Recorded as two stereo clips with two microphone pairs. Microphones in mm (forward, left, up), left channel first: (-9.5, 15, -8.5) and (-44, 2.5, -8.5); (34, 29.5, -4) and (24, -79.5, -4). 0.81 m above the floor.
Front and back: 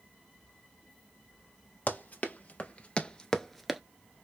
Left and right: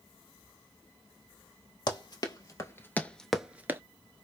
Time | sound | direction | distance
1.9 | running footsteps | 45° left | 1.3 m